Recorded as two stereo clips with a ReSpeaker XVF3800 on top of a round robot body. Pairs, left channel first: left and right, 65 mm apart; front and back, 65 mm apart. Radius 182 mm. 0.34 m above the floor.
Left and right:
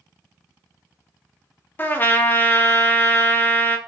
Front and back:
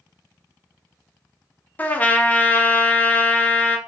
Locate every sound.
1.8 s a trumpet: 50° left, 0.8 m